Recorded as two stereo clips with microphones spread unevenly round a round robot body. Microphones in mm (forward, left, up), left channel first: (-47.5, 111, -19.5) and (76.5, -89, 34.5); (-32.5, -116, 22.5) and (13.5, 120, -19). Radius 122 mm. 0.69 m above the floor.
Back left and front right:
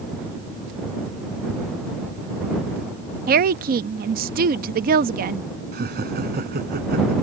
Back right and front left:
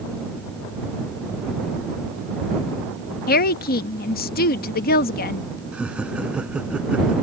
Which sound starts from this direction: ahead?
Laughter, at 5.7 s.